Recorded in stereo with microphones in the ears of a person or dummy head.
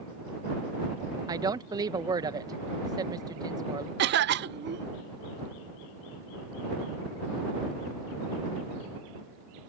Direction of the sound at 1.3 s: 15° right (ahead or behind).